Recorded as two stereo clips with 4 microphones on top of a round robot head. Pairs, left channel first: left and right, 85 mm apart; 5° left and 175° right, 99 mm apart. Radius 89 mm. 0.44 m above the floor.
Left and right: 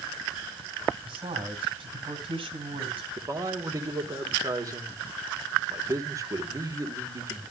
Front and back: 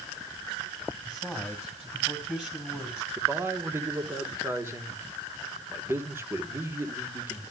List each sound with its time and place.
1.1 s a man speaking: 95° right, 2.5 m
3.2 s a man speaking: 120° right, 1.5 m